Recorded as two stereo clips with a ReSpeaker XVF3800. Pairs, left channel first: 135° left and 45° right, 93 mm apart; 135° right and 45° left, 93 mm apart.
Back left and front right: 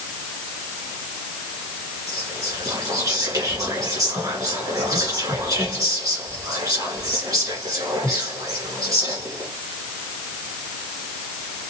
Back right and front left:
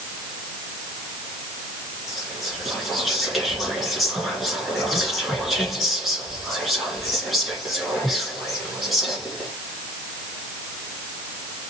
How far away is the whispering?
About 1.8 m.